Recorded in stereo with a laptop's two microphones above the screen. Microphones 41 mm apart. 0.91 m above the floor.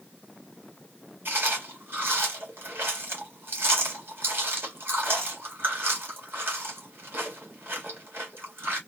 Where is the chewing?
65° right (ahead or behind), 1.8 m.